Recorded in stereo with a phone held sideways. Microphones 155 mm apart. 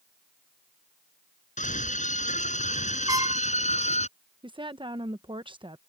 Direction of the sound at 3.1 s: 20° right (ahead or behind).